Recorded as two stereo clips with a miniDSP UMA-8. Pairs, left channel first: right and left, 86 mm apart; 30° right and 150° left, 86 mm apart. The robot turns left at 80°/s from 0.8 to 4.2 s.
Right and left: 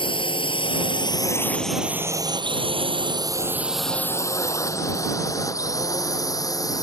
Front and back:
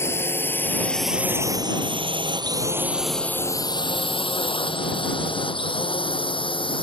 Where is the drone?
90° right; by 6.8 s 45° right.